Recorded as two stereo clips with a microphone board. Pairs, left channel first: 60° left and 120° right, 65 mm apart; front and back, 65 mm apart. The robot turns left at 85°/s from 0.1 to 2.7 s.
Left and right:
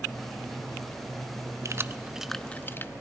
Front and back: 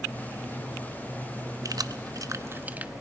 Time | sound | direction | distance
1.6 | keys jangling | 155° right | 0.5 m